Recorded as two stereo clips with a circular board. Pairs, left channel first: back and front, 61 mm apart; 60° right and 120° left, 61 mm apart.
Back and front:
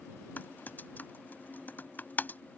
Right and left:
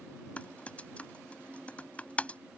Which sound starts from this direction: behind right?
Typing on a keyboard, at 0.4 s.